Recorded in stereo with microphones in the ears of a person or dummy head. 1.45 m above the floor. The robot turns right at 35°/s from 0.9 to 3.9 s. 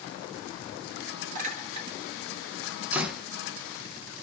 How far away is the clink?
About 2.0 m.